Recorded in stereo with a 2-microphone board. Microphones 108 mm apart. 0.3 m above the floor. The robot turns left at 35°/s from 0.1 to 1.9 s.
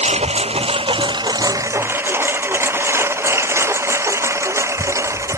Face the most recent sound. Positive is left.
turn(degrees=-25)  # may be behind; listen again after turning